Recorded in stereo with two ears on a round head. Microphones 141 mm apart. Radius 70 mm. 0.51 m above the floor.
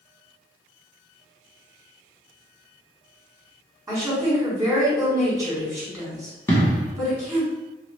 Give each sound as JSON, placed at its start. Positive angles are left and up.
{"t": 3.9, "sound": "a woman speaking", "side_deg": -25, "distance_m": 1.8}
{"t": 6.5, "sound": "an explosion", "side_deg": 15, "distance_m": 1.0}